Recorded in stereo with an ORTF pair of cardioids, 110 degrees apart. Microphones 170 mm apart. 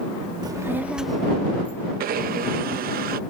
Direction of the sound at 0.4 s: 25° right.